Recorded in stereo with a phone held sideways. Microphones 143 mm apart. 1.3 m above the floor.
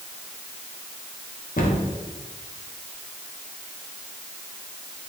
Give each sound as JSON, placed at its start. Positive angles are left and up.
{"t": 1.6, "sound": "a cupboard door", "side_deg": 75, "distance_m": 0.8}